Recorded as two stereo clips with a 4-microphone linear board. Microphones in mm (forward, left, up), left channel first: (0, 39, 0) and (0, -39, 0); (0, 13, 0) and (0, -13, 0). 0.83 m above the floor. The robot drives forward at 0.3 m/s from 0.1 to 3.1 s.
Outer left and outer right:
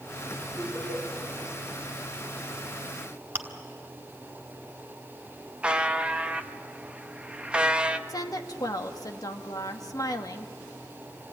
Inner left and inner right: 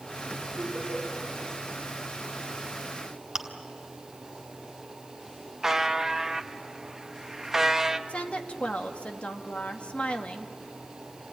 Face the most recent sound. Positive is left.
turn(degrees=55)  # may be behind; listen again after turning